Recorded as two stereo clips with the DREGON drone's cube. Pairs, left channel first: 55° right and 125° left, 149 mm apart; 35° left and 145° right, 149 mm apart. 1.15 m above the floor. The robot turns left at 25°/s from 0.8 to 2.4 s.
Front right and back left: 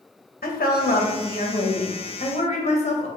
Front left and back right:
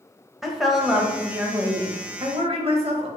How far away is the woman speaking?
About 1.0 m.